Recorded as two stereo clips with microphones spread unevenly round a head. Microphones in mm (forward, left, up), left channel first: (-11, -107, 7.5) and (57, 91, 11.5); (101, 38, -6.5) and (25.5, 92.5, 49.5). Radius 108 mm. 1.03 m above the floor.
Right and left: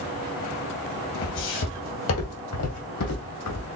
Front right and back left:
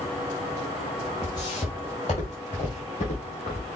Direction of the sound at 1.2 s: 130° right.